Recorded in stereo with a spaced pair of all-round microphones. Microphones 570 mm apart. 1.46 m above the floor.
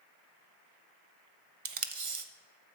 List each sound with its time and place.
1.6 s tape being pulled: 60° right (ahead or behind), 0.7 m